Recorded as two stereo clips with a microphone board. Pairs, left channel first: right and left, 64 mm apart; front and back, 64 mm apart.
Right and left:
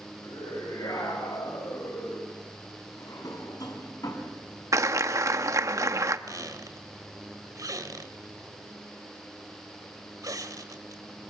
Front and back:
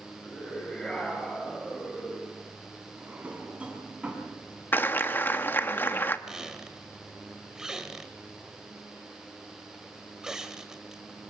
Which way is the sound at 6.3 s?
100° left.